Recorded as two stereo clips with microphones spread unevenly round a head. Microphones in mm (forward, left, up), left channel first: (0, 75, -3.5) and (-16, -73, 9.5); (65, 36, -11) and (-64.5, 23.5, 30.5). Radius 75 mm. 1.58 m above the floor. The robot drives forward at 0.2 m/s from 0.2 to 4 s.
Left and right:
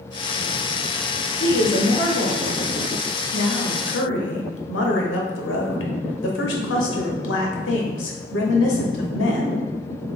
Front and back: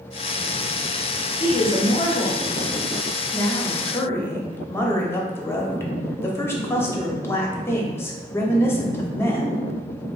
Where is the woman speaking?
55° left, 1.1 m; by 9.6 s 80° left, 0.9 m.